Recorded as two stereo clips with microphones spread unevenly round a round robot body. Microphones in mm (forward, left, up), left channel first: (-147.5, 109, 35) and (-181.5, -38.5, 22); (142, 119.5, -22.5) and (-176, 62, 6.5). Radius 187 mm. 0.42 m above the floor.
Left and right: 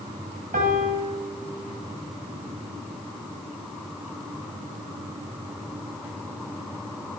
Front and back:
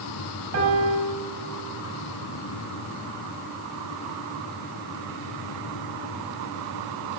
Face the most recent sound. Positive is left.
turn(degrees=-115)